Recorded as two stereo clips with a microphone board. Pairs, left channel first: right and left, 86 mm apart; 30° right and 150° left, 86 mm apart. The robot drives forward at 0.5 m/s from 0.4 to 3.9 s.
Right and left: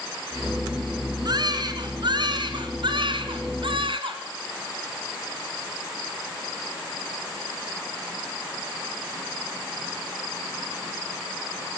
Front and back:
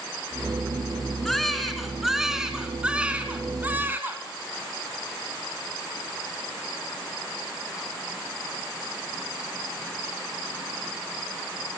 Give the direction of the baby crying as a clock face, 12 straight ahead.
10 o'clock.